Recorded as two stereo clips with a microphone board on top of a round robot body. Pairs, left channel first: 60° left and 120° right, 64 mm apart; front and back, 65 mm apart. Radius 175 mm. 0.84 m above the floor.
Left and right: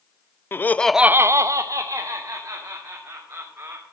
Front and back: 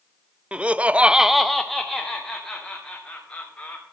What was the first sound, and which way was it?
Laughter, 110° left.